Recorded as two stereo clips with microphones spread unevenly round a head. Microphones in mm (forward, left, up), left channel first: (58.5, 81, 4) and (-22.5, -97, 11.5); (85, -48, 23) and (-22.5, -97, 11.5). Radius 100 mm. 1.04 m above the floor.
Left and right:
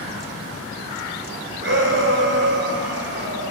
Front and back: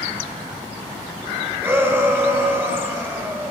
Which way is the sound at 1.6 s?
85° right.